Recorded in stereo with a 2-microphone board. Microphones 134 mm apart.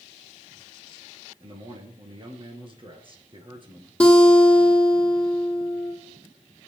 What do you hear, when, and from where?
1.4 s a man speaking: 40° right (ahead or behind), 2.0 m
4.0 s a guitar: 10° left (ahead or behind), 2.5 m